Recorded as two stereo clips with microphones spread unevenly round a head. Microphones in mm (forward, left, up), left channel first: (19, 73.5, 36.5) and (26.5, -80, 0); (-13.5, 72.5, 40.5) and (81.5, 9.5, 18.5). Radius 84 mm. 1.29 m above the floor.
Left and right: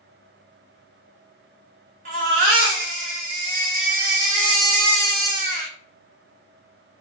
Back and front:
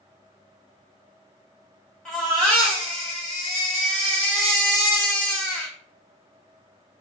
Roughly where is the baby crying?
Behind right.